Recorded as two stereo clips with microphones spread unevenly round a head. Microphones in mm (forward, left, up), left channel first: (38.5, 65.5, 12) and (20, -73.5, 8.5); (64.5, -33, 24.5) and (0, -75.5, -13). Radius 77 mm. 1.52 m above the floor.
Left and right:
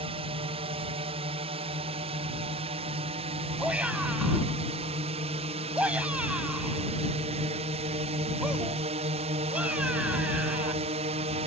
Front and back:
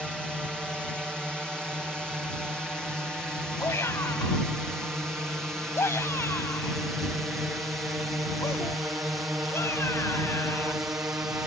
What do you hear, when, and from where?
0.0 s a drone: 60° right; by 11.5 s 100° right
3.6 s a shout: 15° right